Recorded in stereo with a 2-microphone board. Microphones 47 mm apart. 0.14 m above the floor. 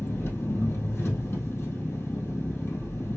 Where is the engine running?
60° left (ahead or behind), 2.5 m.